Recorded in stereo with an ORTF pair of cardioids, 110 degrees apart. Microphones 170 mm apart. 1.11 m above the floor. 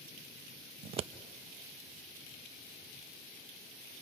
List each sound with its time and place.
0.8 s scissors: 35° right, 0.5 m